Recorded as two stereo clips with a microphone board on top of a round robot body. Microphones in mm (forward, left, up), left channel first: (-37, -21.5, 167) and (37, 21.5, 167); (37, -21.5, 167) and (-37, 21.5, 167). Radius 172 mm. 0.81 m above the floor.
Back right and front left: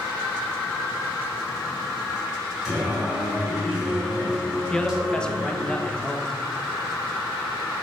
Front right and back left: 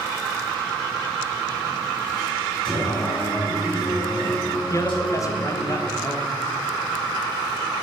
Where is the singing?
50° right, 5 m.